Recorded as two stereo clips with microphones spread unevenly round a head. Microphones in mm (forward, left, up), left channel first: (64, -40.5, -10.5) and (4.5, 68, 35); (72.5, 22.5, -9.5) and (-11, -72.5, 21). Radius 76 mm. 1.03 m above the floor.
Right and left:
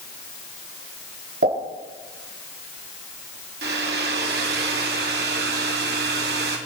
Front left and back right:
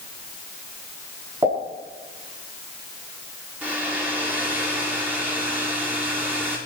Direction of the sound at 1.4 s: 155° left.